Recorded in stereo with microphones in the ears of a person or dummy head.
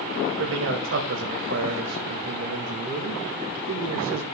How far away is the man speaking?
About 2 m.